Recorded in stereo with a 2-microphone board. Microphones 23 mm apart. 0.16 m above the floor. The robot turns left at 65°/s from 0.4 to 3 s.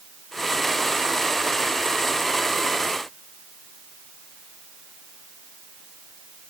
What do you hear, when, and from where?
Only background noise.